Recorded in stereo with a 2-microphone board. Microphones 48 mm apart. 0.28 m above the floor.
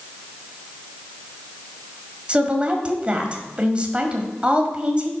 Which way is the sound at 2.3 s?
25° right (ahead or behind).